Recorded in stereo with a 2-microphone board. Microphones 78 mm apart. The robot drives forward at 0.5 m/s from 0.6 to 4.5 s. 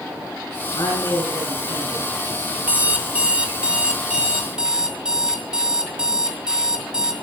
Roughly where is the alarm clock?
Centre.